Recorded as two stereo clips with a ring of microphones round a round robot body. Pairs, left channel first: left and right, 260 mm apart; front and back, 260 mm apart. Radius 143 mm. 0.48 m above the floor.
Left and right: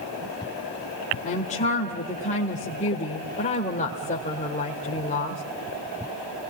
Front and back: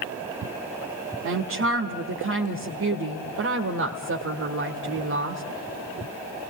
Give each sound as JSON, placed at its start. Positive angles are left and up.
{"t": 1.2, "sound": "a woman speaking", "azimuth_deg": 155, "distance_m": 1.7}